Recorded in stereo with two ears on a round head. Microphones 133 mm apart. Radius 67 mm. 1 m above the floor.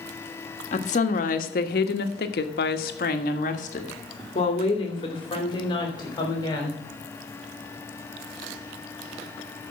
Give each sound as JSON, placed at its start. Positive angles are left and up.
{"t": 0.7, "sound": "a woman speaking", "side_deg": 50, "distance_m": 1.6}